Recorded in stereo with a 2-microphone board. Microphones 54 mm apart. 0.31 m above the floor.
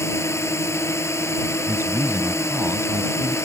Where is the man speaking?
50° right (ahead or behind).